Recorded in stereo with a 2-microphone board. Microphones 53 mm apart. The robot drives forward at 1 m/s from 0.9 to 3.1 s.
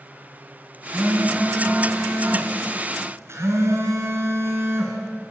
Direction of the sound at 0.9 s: 35° right (ahead or behind).